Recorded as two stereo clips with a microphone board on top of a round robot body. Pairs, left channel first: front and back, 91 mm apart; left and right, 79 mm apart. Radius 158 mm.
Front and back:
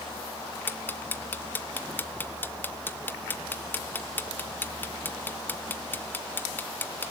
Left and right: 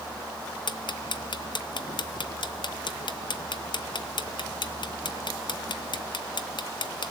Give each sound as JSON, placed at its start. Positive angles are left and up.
{"t": 0.7, "sound": "ticking", "azimuth_deg": 70, "distance_m": 1.4}